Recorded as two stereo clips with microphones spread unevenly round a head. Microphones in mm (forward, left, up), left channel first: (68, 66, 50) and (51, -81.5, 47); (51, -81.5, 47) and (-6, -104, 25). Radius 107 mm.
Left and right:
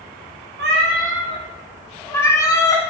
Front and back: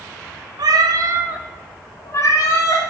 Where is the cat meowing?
140° right, 0.9 m; by 2.9 s 15° left, 1.7 m.